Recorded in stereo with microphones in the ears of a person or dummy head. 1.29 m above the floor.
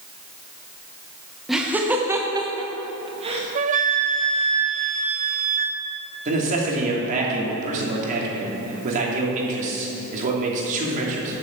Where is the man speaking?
40° right (ahead or behind), 2.5 m.